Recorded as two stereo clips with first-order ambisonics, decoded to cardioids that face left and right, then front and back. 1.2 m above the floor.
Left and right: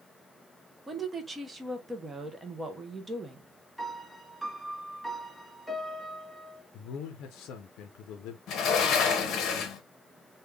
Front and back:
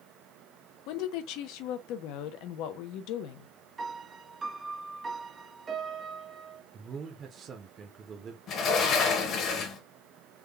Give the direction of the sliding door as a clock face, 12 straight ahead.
10 o'clock.